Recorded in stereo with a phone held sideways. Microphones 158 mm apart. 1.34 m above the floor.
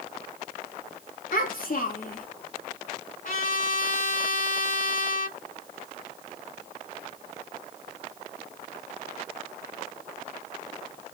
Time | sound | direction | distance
1.3 | a child speaking | 65° left (ahead or behind) | 1.5 m
3.2 | a trumpet | 60° left (ahead or behind) | 2 m